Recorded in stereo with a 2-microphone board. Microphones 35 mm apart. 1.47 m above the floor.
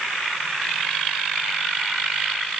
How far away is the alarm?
I don't hear an alarm.